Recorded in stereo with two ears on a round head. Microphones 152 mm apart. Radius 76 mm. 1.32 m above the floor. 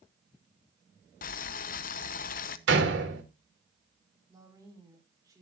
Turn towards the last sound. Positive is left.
turn(degrees=-20)  # may be behind; listen again after turning